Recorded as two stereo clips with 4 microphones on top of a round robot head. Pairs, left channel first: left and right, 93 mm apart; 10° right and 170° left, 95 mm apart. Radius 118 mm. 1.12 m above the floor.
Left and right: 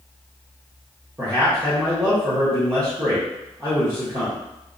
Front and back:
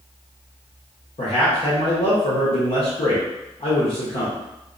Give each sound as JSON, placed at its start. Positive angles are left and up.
{"t": 1.2, "sound": "a man speaking", "azimuth_deg": -30, "distance_m": 0.8}